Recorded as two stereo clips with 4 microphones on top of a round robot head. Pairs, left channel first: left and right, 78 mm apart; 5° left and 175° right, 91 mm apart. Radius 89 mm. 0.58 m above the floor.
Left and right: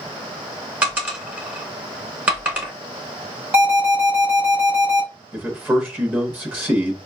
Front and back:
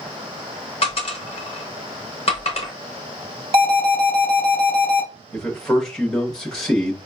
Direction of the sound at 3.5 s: 165° right.